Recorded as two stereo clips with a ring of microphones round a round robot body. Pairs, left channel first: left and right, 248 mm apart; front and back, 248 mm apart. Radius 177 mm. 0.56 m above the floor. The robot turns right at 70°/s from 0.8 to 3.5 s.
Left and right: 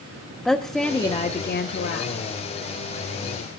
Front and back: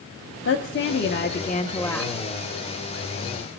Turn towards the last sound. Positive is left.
turn(degrees=-170)